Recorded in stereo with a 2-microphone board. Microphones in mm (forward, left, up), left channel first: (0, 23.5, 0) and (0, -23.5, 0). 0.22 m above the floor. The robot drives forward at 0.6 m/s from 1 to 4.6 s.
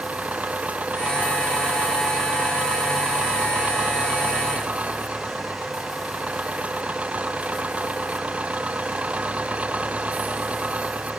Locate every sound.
0.0 s an engine running: 30° right (ahead or behind)